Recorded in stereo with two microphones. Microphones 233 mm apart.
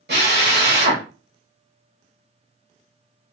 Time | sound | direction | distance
0.1 | a drill | 45° right (ahead or behind) | 0.9 m